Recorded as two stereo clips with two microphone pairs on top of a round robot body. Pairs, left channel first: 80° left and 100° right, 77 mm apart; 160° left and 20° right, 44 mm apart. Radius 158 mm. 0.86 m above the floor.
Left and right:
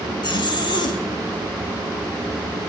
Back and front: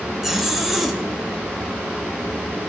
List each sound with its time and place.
0.2 s a zipper: 65° left, 1.8 m